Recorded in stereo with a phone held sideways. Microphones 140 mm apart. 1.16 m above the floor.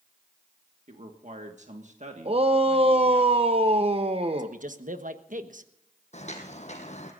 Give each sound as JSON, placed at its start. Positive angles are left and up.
{"t": 0.9, "sound": "a man speaking", "side_deg": -60, "distance_m": 1.6}
{"t": 2.2, "sound": "a shout", "side_deg": -45, "distance_m": 0.8}
{"t": 4.4, "sound": "a man speaking", "side_deg": -70, "distance_m": 1.2}
{"t": 6.1, "sound": "footsteps", "side_deg": 55, "distance_m": 2.5}